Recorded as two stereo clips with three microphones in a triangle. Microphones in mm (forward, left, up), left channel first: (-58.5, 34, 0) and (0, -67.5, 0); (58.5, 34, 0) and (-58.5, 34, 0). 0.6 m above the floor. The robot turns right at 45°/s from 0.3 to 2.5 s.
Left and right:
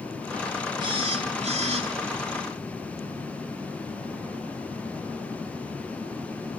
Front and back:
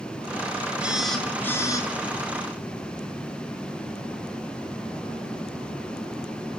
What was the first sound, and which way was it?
A phone buzzing, 100° right.